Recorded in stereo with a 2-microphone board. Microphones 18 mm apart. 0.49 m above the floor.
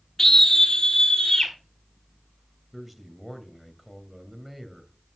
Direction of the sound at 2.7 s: 10° right (ahead or behind).